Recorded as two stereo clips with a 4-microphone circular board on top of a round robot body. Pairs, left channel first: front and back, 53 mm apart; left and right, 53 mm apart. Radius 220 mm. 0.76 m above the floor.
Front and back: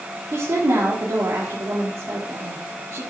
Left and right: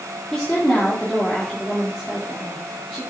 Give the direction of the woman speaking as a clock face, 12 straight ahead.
7 o'clock.